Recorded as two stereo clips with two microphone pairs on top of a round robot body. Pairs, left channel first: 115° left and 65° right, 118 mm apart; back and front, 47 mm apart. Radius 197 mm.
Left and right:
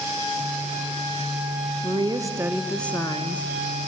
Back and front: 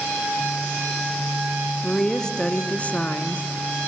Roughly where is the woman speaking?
Right.